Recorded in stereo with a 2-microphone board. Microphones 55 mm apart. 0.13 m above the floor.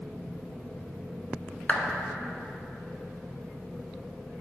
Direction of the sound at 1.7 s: 30° left (ahead or behind).